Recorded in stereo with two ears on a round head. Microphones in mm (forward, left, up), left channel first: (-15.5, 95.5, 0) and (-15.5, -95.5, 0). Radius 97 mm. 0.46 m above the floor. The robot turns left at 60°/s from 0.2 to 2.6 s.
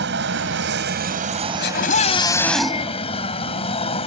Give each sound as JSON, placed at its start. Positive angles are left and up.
{"t": 0.0, "sound": "an aircraft", "azimuth_deg": -70}
{"t": 1.6, "sound": "a scream", "azimuth_deg": 60}